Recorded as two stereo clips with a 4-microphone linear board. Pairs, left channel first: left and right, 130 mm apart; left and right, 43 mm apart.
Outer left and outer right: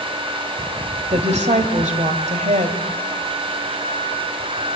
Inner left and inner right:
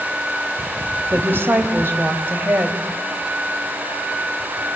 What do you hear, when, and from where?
1.1 s a woman speaking: 60° right (ahead or behind), 2.5 m